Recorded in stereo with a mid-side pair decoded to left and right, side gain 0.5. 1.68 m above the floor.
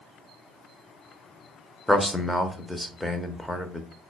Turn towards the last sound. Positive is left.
turn(degrees=5)